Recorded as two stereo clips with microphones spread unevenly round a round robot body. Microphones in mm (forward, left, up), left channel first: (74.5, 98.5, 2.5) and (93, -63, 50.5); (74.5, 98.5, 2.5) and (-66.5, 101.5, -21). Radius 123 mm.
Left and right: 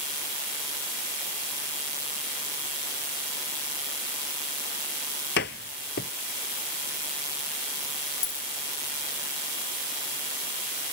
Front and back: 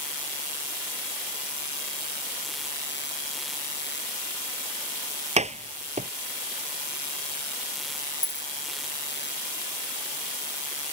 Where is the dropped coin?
60° left.